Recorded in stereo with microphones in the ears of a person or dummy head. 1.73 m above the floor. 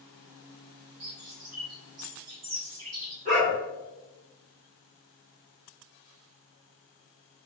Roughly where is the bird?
Right.